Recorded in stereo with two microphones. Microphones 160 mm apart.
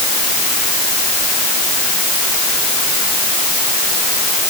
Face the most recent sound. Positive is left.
No sound to turn to.